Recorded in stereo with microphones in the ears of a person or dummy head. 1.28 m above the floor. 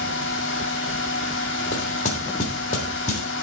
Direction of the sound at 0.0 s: 70° left (ahead or behind).